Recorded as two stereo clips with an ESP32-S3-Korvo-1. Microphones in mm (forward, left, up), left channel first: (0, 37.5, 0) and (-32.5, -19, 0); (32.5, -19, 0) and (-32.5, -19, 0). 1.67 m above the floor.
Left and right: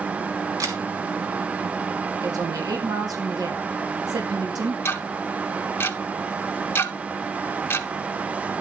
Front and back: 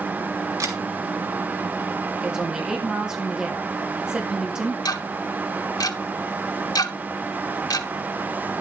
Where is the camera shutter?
150° right, 3 m.